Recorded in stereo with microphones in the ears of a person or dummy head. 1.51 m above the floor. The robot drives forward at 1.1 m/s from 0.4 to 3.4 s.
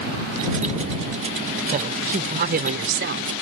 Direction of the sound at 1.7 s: 40° right (ahead or behind).